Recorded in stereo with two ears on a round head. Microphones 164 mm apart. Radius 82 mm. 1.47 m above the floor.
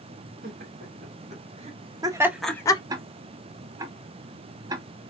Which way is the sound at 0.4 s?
55° right (ahead or behind).